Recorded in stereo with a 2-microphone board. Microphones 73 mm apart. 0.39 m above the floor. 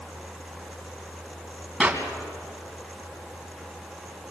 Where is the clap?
15° right (ahead or behind), 3 m.